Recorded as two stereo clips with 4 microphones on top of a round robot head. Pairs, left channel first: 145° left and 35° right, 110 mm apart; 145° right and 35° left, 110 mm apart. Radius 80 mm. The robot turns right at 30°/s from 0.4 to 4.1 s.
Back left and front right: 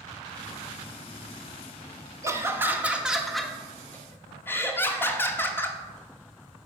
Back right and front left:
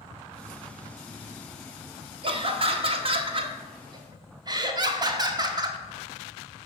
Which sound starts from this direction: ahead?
Laughter, at 2.2 s.